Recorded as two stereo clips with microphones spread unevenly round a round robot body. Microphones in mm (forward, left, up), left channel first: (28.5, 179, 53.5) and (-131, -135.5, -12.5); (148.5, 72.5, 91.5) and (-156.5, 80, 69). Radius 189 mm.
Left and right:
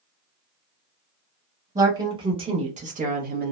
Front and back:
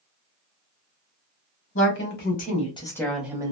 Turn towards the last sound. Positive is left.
turn(degrees=-125)